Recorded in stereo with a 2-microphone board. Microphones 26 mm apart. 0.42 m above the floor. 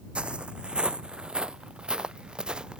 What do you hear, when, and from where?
0.1 s footsteps: 40° right (ahead or behind); by 2.8 s 30° right (ahead or behind)